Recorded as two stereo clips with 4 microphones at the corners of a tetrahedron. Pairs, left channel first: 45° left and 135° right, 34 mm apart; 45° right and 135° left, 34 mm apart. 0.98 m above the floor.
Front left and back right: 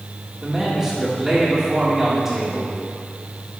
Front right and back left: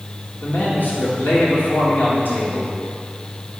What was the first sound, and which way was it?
A man speaking, 55° right.